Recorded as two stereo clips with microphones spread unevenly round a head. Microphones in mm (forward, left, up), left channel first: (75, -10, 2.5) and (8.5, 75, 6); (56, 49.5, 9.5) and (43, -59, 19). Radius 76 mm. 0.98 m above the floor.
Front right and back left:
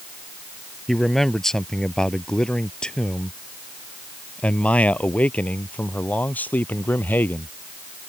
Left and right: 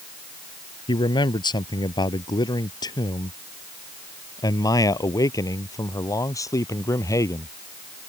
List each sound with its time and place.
0.9 s a man speaking: 35° left; by 7.5 s 20° left